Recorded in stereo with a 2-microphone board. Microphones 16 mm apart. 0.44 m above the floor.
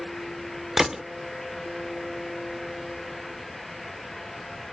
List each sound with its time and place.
0.8 s a gunshot: 30° right (ahead or behind)